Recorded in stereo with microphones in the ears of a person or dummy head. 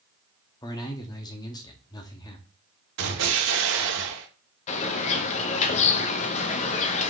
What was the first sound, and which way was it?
A man speaking, 20° left (ahead or behind).